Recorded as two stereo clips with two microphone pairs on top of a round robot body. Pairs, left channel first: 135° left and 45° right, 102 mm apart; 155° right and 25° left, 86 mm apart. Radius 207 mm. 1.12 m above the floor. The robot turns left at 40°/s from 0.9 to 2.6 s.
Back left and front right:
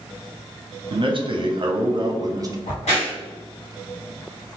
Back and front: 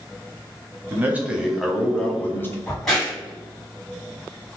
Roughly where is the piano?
I don't hear a piano.